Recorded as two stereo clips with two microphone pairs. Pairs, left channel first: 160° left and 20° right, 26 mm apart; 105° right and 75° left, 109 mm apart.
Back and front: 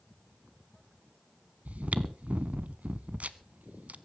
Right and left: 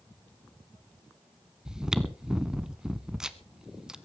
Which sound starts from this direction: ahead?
Chewing, at 1.6 s.